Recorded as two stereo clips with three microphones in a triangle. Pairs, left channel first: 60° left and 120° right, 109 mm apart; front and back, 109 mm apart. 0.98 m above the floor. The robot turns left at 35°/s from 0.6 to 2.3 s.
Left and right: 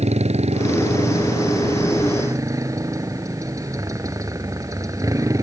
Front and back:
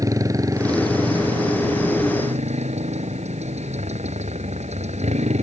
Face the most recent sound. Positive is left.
turn(degrees=180)